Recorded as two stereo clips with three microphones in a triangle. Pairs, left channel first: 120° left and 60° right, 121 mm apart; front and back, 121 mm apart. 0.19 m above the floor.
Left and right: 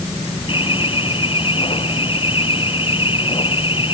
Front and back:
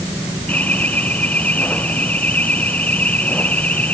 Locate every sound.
0.5 s an alarm: 80° left